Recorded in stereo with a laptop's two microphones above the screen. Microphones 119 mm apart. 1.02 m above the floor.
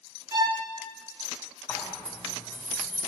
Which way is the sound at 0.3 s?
35° right (ahead or behind).